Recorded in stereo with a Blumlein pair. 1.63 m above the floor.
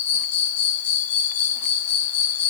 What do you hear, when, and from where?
0.0 s an insect: 60° left, 1.7 m